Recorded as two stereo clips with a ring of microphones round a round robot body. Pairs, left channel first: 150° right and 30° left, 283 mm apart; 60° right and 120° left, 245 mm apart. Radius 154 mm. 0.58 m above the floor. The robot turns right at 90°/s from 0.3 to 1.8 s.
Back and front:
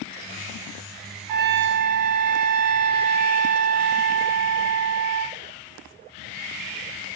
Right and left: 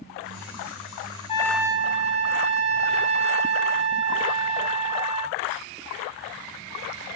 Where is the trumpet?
10° left, 0.7 m; by 5.4 s 55° left, 0.7 m.